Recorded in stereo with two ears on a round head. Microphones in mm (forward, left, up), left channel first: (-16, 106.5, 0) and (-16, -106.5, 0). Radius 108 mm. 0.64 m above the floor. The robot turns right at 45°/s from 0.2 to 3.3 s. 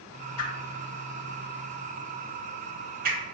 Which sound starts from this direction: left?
A whoosh, at 0.4 s.